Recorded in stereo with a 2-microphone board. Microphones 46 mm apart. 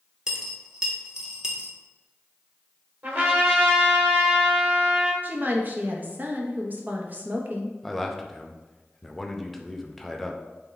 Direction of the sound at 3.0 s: 45° right (ahead or behind).